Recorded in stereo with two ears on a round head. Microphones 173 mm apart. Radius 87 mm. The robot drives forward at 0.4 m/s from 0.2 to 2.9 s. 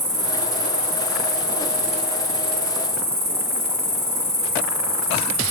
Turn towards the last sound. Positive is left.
turn(degrees=-15)  # may be behind; listen again after turning